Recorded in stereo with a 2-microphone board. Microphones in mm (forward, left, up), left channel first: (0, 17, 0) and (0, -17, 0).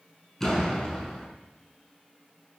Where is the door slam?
15° left (ahead or behind), 6 m.